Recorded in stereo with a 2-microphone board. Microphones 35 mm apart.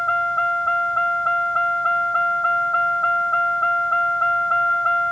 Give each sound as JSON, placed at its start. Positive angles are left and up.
{"t": 0.0, "sound": "a vehicle", "side_deg": 25}